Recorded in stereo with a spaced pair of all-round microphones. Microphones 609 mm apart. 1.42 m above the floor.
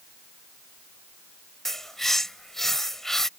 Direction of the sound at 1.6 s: Centre (ahead or behind).